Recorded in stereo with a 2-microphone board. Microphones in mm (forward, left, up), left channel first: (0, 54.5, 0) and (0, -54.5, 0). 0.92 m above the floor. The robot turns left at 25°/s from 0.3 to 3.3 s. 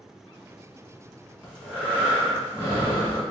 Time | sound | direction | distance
1.4 | breathing | 175° left | 1.6 m